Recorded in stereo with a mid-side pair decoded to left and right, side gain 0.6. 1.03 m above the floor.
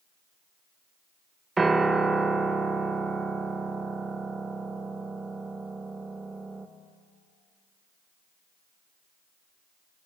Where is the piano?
20° right, 0.6 m.